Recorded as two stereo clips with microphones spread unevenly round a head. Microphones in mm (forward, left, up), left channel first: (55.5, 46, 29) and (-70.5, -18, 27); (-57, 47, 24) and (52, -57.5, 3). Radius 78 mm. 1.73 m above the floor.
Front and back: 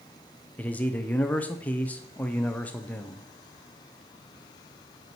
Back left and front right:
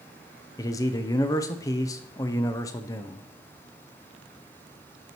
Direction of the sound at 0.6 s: 100° left.